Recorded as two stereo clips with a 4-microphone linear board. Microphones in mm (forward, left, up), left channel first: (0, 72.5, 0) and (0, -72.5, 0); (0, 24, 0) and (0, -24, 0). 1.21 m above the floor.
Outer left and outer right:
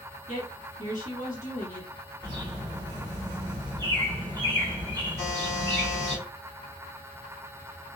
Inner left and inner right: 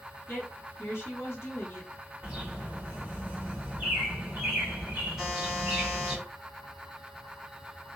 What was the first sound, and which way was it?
A woman speaking, 60° left (ahead or behind).